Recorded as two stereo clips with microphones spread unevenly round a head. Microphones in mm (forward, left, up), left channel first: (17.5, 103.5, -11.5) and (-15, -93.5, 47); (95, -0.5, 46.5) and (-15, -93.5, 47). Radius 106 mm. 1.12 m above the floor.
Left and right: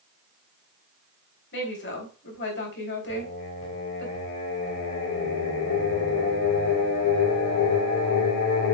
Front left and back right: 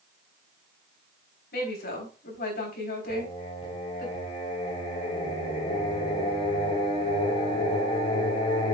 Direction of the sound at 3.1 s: 95° left.